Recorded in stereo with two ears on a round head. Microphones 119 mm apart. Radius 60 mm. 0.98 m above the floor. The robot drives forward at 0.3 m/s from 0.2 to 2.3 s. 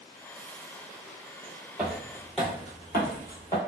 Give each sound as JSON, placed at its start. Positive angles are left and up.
{"t": 1.8, "sound": "footsteps", "side_deg": -10, "distance_m": 1.3}